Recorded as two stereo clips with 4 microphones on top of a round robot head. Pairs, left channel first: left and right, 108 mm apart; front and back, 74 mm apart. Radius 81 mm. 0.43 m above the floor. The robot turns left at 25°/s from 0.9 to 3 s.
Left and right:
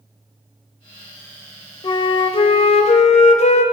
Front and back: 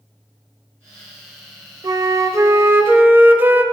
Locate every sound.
1.8 s a flute: 140° left, 0.6 m; by 3.6 s 115° left, 0.6 m